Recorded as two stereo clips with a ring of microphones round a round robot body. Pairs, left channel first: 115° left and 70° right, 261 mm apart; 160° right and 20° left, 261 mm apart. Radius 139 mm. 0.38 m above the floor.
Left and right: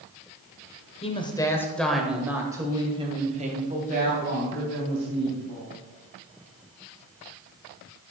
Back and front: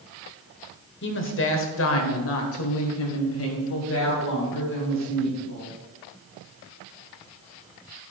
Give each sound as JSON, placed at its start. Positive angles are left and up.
{"t": 1.0, "sound": "a woman speaking", "azimuth_deg": 175, "distance_m": 1.7}